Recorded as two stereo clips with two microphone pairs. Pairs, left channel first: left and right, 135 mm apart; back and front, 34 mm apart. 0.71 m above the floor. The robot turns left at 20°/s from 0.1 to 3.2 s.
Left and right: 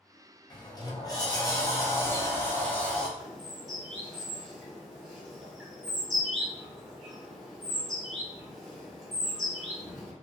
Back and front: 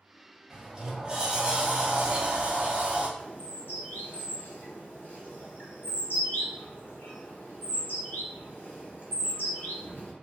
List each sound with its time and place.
0.5 s a sliding door: 70° left, 0.6 m; by 3.1 s 15° left, 0.6 m
3.2 s a bird: straight behind, 1.0 m